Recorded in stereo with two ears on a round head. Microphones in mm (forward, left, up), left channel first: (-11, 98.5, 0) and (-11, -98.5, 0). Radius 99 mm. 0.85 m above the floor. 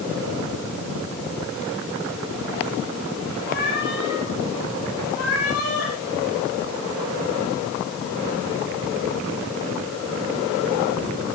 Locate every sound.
3.5 s a cat meowing: 45° left (ahead or behind), 6.5 m; by 5.9 s 75° left (ahead or behind), 7 m